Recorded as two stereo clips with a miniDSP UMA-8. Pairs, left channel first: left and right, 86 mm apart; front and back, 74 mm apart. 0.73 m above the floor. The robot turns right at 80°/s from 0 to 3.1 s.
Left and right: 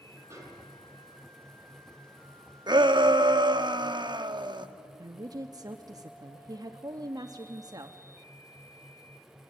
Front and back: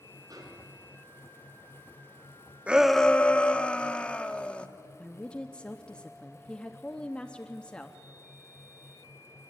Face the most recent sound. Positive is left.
turn(degrees=-75)